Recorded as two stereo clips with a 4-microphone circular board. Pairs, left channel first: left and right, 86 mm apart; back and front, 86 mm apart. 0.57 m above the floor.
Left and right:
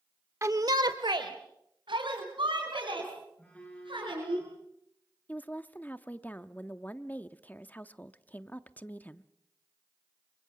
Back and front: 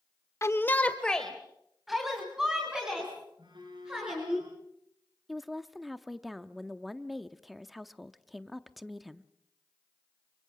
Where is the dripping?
No dripping in this recording.